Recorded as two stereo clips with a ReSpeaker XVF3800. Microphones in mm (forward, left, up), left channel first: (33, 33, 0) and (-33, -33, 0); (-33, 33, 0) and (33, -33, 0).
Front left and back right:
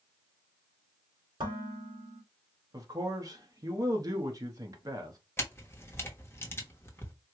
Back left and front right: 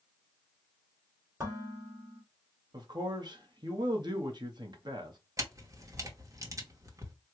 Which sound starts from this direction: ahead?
A camera shutter, at 5.4 s.